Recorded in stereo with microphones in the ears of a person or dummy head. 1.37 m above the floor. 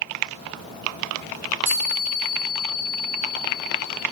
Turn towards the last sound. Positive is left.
turn(degrees=-5)  # may be behind; listen again after turning